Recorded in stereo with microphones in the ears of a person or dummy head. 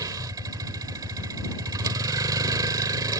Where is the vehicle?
20° right (ahead or behind).